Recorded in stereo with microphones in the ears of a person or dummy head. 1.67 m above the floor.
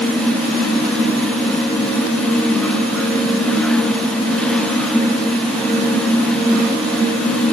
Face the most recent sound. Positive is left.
No sound to turn to.